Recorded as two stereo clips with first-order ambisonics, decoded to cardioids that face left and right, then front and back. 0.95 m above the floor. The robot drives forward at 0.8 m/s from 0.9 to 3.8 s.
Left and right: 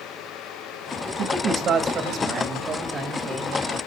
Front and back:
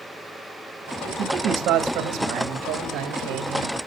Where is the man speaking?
130° right, 1.6 m; by 3.9 s 160° right, 3.5 m.